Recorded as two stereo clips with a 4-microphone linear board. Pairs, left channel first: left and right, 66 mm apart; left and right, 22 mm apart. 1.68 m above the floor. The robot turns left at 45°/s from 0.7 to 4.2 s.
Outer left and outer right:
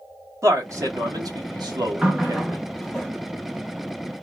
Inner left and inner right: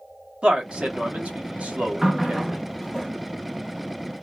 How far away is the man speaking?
About 1.4 m.